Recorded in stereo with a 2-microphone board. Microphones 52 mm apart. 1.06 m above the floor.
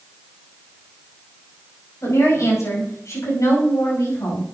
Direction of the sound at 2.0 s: 80° left.